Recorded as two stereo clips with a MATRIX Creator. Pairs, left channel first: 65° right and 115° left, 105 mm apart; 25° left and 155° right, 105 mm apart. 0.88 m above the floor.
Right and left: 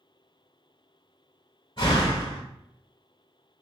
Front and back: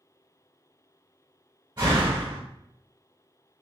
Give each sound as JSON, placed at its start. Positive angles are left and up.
{"t": 1.8, "sound": "a door slam", "azimuth_deg": -115, "distance_m": 2.0}